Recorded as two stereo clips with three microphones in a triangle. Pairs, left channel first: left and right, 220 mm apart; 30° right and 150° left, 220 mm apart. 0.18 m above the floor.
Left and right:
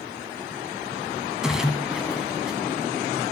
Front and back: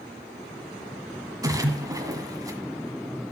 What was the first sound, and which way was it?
A splash, 170° right.